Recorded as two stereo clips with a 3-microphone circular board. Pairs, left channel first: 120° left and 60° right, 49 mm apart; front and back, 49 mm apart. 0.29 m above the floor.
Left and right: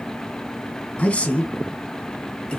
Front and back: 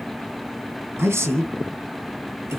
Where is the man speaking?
Straight behind, 2 m; by 2.6 s 170° right, 3 m.